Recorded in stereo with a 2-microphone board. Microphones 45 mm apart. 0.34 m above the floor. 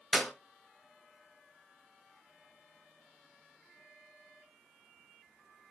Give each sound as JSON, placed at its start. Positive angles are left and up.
{"t": 0.1, "sound": "a clap", "side_deg": 10, "distance_m": 1.4}